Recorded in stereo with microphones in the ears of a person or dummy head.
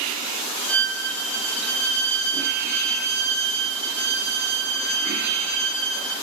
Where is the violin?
10° left (ahead or behind), 1.0 m.